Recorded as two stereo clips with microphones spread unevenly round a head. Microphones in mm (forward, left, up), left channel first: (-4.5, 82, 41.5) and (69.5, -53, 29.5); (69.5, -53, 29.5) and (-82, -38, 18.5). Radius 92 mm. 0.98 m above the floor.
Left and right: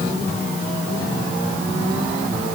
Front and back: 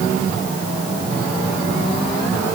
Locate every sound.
Only background noise.